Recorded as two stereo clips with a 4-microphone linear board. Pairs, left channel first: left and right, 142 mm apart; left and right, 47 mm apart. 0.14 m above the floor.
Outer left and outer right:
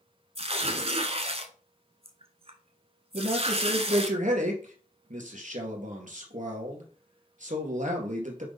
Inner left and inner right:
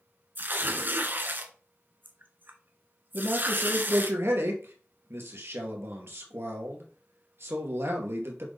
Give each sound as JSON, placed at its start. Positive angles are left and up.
{"t": 0.3, "sound": "tearing paper", "side_deg": -45, "distance_m": 1.1}
{"t": 3.1, "sound": "a man speaking", "side_deg": -60, "distance_m": 2.5}